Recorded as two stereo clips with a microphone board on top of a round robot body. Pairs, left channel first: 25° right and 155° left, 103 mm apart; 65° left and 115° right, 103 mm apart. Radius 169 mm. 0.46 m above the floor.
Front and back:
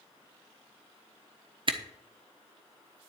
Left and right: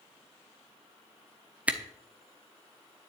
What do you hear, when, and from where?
1.7 s a camera shutter: 175° left, 1.3 m